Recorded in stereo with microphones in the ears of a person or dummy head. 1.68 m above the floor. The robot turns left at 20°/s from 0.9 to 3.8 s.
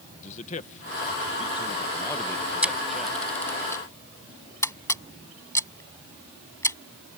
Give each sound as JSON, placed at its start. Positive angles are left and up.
{"t": 0.2, "sound": "a man speaking", "side_deg": 40}
{"t": 2.6, "sound": "a camera shutter", "side_deg": -5}